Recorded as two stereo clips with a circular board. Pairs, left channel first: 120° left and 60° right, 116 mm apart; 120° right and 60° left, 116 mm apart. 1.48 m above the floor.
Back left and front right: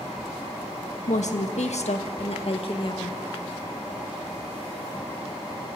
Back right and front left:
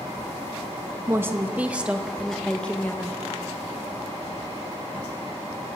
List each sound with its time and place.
1.1 s a woman speaking: 130° left, 2 m; by 3.2 s 170° left, 1.8 m